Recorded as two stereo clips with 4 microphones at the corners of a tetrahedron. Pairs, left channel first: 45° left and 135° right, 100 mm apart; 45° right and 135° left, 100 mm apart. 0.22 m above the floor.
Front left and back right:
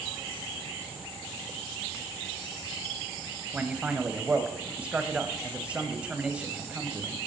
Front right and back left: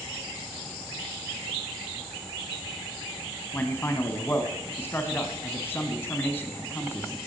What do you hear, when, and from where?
3.5 s a man speaking: 70° right, 1.3 m